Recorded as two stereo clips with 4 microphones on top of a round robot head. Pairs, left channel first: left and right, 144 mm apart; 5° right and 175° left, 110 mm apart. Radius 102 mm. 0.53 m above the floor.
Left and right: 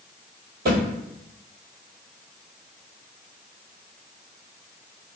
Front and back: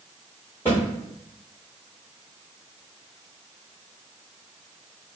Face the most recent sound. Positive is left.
turn(degrees=-85)